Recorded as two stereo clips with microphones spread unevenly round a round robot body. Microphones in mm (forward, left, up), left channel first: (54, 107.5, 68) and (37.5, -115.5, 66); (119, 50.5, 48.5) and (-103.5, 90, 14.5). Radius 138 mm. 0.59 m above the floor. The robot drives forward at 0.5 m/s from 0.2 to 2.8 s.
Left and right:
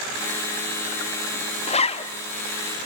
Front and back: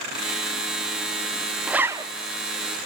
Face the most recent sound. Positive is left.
turn(degrees=150)